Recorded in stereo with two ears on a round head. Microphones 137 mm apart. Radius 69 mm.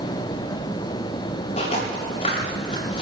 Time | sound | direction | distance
1.6 | footsteps | 40° left (ahead or behind) | 8 m